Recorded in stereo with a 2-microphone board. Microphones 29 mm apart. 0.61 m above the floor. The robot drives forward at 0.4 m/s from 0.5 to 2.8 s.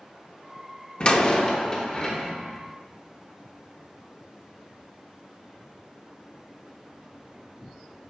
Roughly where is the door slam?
Left.